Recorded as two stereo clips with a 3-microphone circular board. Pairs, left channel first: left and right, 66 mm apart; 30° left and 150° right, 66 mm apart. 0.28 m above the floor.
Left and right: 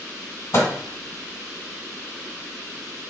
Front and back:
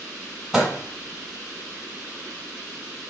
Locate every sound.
0.5 s a microwave: 120° left, 1.4 m